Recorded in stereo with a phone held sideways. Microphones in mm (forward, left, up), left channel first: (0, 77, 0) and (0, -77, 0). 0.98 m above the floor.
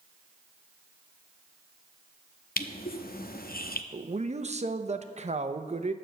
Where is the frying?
I don't hear frying.